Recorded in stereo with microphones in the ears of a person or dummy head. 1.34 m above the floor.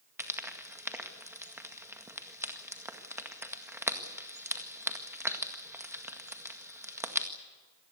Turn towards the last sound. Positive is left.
turn(degrees=-5)  # may be behind; listen again after turning